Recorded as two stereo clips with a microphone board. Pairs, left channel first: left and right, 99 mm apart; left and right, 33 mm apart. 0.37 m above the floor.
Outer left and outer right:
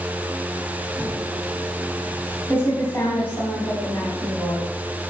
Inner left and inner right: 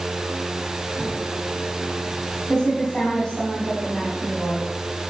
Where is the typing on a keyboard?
20° left (ahead or behind), 3 m.